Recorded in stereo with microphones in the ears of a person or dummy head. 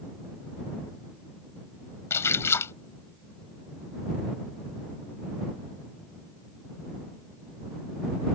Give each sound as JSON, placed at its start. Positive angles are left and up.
{"t": 2.1, "sound": "a splash", "side_deg": 15}